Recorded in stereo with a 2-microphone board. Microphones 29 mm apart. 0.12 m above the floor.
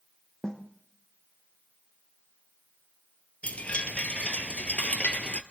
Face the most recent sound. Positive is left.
turn(degrees=50)  # may be behind; listen again after turning